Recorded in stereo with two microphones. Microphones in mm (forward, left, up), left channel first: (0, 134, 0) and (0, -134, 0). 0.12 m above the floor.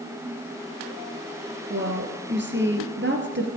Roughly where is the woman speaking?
Right.